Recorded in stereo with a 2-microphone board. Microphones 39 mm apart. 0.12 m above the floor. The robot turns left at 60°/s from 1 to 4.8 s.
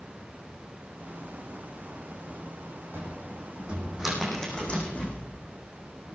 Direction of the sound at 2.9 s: 70° right (ahead or behind).